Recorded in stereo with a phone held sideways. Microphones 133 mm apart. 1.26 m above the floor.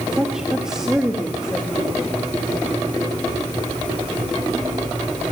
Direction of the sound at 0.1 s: 5° right (ahead or behind).